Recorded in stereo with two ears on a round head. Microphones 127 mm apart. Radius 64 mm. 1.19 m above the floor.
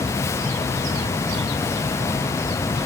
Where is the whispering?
I don't hear whispering.